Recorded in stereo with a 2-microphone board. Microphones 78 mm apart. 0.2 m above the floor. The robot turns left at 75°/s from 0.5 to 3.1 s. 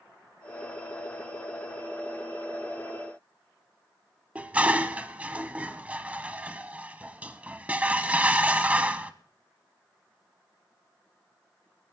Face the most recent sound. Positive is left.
turn(degrees=-20)  # may be behind; listen again after turning